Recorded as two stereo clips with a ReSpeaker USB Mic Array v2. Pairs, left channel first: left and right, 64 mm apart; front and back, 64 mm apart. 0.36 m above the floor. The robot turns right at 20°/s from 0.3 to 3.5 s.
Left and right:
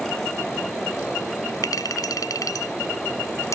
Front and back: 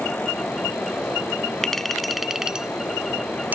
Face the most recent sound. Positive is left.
turn(degrees=120)